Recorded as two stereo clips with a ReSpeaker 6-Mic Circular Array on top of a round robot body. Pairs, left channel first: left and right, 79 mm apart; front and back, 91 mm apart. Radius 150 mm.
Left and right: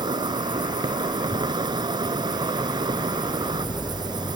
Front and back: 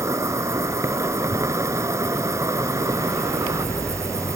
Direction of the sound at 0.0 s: 120° right.